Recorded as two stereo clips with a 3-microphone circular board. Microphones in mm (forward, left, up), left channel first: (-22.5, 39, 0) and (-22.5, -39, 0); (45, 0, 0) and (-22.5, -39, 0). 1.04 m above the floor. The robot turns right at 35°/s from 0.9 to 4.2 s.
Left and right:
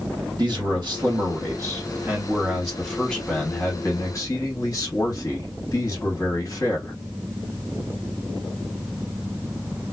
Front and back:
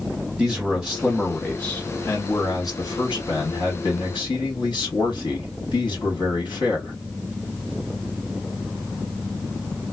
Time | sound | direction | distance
0.4 | a man speaking | 65° right | 1.9 m